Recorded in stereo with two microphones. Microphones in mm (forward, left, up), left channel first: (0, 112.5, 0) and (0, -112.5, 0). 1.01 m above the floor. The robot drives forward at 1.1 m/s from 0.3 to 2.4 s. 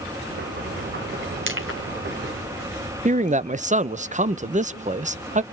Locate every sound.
1.5 s crushing: 60° right (ahead or behind), 2.5 m; by 1.8 s 70° right (ahead or behind), 2 m
3.0 s a man speaking: 35° right (ahead or behind), 0.5 m